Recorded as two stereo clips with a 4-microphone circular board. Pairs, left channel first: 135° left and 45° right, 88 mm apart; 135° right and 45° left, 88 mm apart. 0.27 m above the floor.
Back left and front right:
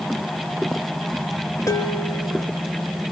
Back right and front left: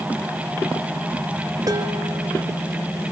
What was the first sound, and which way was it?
Dishes clattering, 85° left.